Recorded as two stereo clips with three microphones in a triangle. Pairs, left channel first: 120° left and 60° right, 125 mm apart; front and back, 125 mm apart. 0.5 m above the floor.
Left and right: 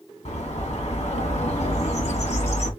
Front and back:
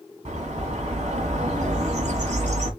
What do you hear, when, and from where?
0.2 s a bird: 150° left, 1.6 m